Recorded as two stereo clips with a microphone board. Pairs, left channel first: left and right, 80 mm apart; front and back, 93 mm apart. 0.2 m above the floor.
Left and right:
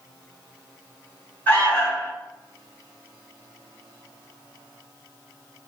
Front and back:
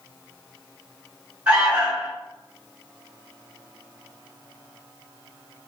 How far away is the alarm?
About 1.6 m.